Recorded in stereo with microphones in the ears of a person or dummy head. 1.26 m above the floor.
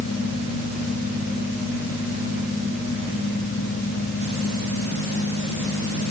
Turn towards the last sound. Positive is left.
No sound to turn to.